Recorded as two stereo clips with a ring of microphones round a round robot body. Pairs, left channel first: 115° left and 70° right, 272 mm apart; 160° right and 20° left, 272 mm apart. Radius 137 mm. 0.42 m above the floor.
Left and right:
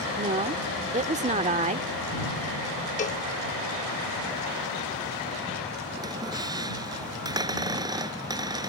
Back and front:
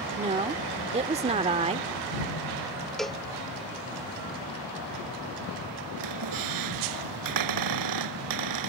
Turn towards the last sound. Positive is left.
turn(degrees=10)